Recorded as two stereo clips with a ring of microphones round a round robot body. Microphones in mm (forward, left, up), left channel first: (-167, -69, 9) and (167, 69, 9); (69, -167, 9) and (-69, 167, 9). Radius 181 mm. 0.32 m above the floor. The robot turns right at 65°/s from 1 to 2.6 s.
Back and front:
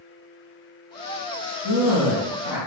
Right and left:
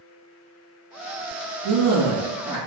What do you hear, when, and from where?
1.6 s a man speaking: 145° left, 1.9 m; by 2.6 s 150° right, 1.9 m